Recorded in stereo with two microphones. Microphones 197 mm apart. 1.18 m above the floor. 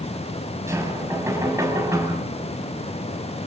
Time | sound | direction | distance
0.7 | knocking | 15° right (ahead or behind) | 6.5 m